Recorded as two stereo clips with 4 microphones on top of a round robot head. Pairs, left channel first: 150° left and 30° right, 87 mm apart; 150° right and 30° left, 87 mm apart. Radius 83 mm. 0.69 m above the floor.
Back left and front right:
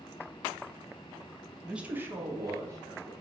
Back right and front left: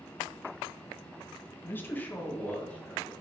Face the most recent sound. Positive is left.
turn(degrees=-75)